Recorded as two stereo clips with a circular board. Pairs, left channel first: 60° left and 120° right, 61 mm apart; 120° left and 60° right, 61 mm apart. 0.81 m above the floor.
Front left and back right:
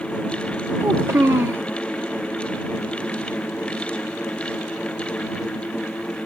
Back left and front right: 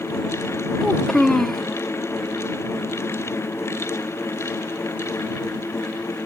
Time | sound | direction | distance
0.8 | a child speaking | 155° right | ?